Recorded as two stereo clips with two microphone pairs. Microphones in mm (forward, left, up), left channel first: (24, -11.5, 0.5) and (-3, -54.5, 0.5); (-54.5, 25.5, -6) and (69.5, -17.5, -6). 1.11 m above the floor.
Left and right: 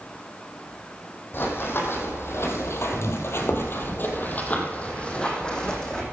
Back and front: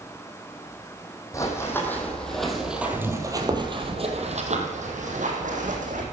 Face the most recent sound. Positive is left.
turn(degrees=-20)